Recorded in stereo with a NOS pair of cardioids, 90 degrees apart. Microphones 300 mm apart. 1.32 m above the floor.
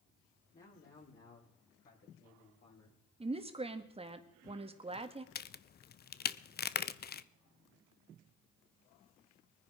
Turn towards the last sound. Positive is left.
turn(degrees=30)